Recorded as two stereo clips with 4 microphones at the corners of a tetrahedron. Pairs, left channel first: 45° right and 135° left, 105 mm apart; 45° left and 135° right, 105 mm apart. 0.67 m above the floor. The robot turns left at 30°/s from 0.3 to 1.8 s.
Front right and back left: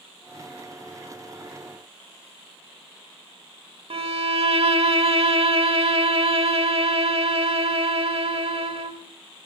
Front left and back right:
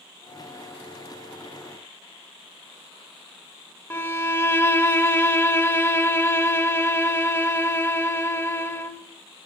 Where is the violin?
110° left, 0.9 m.